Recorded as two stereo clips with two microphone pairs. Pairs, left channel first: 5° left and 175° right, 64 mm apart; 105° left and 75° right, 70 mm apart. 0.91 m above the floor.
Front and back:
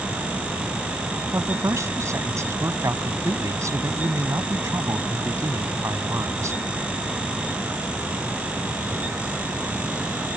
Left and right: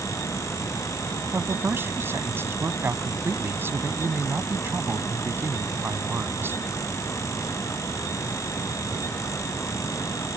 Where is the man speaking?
135° right.